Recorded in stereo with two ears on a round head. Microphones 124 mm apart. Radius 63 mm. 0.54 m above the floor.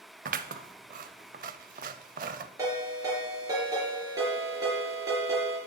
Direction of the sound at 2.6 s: 25° right (ahead or behind).